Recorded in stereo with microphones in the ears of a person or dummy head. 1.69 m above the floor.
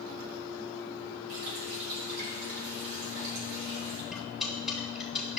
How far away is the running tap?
About 3 m.